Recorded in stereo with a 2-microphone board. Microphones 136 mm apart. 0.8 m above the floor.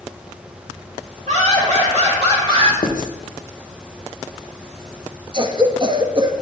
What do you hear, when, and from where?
1.3 s laughter: 65° right (ahead or behind), 3 m; by 2.7 s 40° right (ahead or behind), 1.7 m
2.8 s writing: 75° left (ahead or behind), 0.8 m
5.3 s a cough: 35° right (ahead or behind), 0.7 m